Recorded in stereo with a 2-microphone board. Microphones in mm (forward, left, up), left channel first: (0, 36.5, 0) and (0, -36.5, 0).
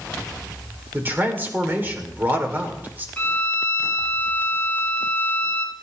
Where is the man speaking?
25° right (ahead or behind), 2.5 m.